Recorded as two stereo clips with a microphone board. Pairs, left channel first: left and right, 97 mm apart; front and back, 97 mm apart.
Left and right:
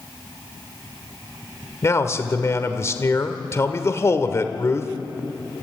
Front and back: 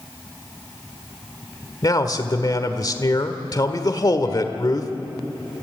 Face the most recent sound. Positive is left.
turn(degrees=40)